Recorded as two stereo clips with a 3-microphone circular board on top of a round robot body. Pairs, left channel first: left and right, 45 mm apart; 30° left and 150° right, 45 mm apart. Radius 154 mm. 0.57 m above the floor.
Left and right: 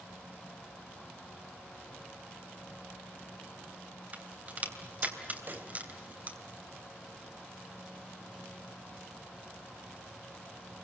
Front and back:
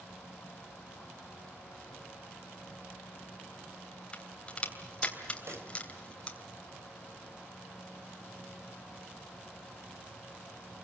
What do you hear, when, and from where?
4.1 s a crack: 35° right, 3 m
5.5 s a pop: 135° right, 2.5 m